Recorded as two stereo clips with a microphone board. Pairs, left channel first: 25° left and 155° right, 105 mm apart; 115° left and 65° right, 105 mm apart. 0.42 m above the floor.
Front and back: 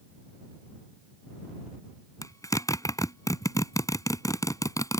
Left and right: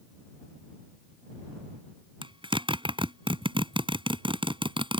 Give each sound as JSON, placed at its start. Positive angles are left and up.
{"t": 2.2, "sound": "a zipper", "azimuth_deg": -35}